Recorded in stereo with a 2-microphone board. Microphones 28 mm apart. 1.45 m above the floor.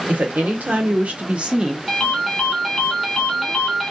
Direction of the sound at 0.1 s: 80° right.